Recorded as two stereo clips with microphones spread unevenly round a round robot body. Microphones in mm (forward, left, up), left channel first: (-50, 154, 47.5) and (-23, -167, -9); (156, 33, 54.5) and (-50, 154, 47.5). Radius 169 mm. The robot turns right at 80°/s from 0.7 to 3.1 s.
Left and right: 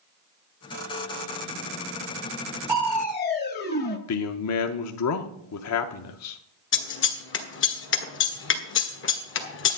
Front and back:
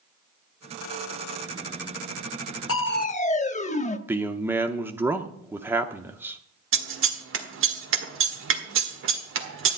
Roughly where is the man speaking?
Left.